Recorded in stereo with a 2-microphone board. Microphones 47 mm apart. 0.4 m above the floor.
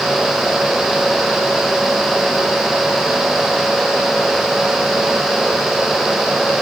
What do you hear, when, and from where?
Only background noise.